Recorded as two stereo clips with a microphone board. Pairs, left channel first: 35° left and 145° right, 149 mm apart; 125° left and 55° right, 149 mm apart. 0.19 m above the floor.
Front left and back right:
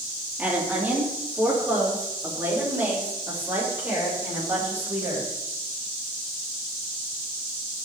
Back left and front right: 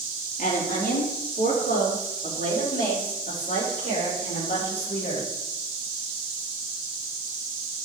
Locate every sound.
0.4 s a woman speaking: 135° left, 4.5 m; by 5.3 s 140° left, 9.5 m